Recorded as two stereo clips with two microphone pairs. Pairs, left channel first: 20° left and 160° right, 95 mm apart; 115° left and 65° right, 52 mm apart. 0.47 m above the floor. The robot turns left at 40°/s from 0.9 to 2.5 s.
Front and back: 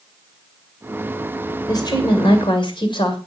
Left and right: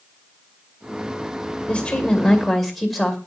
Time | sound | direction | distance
1.7 | a woman speaking | 60° left | 2 m